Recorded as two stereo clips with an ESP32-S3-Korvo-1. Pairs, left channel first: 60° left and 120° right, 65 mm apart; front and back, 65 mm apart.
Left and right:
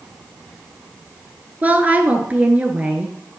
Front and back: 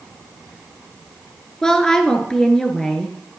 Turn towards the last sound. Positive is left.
turn(degrees=-75)